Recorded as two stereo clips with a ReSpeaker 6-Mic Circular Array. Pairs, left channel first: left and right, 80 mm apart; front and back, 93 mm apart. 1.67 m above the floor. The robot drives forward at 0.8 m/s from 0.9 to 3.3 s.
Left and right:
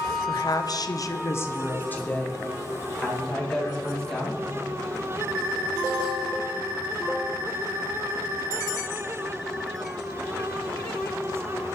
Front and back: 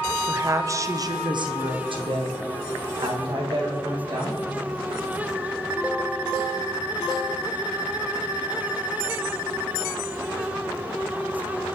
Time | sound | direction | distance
0.3 | a woman speaking | 125° left | 0.6 m